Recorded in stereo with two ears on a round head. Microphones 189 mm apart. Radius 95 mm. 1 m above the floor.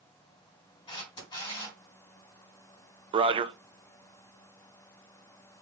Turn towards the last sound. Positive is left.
turn(degrees=-25)  # may be behind; listen again after turning